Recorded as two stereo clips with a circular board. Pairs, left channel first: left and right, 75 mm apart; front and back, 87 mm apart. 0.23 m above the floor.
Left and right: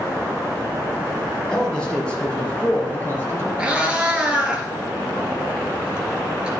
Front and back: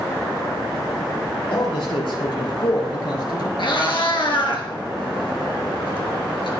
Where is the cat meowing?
15° right, 2.5 m.